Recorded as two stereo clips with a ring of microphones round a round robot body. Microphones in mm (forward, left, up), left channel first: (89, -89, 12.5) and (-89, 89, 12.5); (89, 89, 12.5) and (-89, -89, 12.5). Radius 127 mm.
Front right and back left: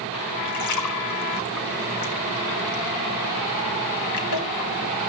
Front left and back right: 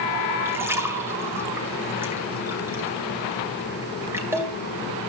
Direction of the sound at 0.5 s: 55° right.